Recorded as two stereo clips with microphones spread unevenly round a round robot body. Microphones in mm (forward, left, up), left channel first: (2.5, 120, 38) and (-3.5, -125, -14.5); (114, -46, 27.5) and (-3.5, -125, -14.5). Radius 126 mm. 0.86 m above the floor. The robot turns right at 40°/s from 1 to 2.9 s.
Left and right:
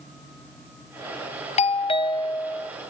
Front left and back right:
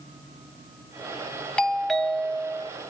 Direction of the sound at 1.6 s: 145° left.